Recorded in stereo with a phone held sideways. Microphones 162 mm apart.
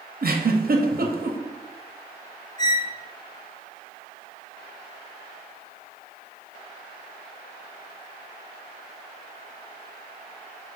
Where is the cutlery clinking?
I don't hear cutlery clinking.